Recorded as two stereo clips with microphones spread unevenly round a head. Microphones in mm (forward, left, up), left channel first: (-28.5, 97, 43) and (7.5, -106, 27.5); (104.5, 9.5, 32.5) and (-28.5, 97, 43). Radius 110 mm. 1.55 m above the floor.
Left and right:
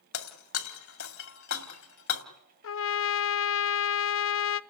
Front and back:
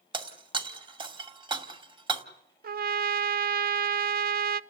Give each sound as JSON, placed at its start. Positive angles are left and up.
{"t": 0.1, "sound": "breaking glass", "azimuth_deg": 95, "distance_m": 2.5}
{"t": 2.6, "sound": "a trumpet", "azimuth_deg": 125, "distance_m": 0.7}